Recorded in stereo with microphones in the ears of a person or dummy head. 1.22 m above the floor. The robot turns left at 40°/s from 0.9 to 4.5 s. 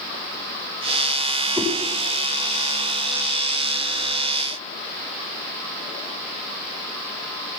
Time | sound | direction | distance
1.6 | a whoosh | 10° right (ahead or behind) | 5 m